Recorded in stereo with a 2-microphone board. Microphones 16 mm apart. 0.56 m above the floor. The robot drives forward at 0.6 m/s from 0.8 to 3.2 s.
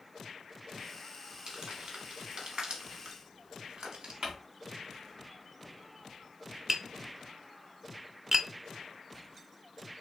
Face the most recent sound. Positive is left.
turn(degrees=-30)  # may be behind; listen again after turning